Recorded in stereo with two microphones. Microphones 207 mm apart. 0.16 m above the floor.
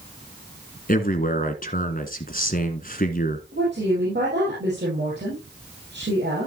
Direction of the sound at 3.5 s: 65° right (ahead or behind).